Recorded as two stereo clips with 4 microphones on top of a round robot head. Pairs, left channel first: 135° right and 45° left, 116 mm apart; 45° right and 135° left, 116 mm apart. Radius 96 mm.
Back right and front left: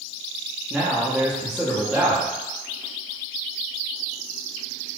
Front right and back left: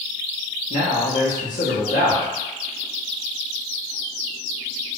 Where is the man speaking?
40° right, 0.7 m.